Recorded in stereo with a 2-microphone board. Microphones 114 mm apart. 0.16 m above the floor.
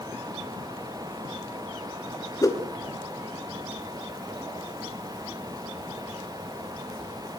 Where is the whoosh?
30° left (ahead or behind), 2.5 m.